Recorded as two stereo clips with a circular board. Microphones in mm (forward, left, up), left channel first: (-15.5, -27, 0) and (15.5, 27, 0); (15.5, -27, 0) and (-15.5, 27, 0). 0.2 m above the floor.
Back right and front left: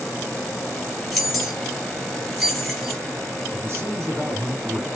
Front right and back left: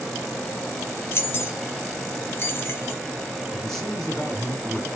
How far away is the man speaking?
About 1.8 m.